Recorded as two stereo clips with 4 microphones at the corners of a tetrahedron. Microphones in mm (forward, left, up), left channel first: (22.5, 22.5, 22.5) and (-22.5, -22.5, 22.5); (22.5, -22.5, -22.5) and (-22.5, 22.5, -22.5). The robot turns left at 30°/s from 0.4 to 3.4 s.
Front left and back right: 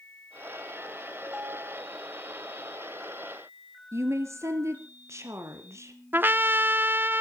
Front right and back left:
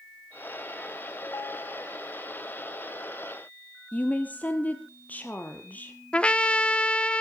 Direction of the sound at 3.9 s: 105° right.